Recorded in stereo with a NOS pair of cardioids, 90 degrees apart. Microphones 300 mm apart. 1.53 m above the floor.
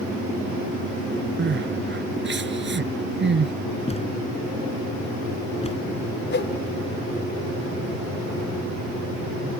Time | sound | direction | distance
1.4 | crying | 35° right | ?
3.9 | a thud | 20° left | ?
6.3 | a whoosh | 35° left | ?